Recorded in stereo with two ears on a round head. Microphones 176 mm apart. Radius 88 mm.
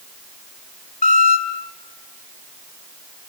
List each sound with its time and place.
1.0 s a squeak: 40° left (ahead or behind), 2.5 m